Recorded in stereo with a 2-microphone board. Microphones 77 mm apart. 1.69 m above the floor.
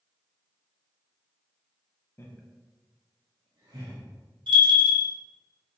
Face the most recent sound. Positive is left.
turn(degrees=-80)